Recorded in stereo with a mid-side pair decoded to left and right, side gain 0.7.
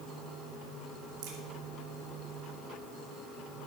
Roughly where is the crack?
Ahead right.